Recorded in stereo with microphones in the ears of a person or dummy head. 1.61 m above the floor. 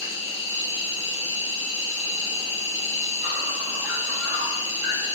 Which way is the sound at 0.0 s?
15° right (ahead or behind).